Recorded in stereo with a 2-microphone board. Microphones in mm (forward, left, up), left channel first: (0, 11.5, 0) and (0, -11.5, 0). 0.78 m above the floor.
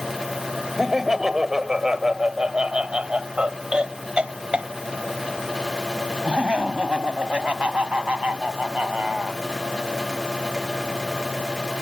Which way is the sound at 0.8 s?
10° right (ahead or behind).